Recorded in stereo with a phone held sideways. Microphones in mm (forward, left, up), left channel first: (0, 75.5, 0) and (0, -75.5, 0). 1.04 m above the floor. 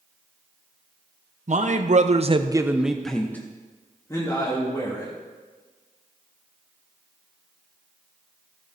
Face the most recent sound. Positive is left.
turn(degrees=25)  # may be behind; listen again after turning